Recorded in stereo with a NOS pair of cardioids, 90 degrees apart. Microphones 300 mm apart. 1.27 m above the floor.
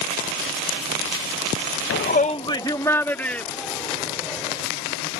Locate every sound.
1.9 s a shout: 45° left; by 4.7 s straight ahead